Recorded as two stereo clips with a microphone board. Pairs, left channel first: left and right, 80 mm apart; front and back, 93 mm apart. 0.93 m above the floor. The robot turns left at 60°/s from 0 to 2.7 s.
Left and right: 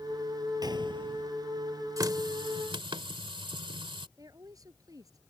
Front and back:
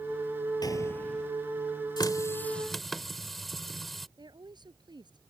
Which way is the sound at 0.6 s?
50° right.